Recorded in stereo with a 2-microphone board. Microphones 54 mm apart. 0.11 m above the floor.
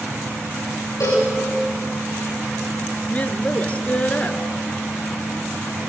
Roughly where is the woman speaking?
Left.